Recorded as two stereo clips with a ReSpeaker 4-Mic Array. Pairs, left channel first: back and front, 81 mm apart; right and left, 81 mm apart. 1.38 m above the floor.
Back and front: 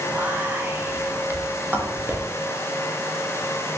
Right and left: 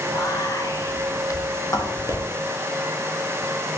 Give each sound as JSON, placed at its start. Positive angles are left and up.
{"t": 0.1, "sound": "whispering", "azimuth_deg": -60, "distance_m": 0.6}